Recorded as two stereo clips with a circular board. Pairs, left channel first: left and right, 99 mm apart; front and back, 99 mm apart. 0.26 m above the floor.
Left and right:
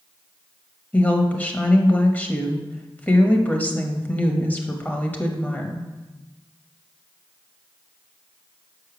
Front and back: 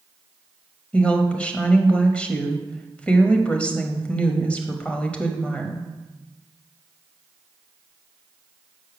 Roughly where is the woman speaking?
Ahead left.